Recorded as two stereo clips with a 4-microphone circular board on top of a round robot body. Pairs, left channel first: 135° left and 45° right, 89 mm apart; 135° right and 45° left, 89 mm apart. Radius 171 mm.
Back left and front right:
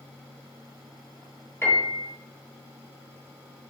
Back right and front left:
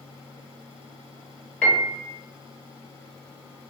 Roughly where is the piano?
Behind left.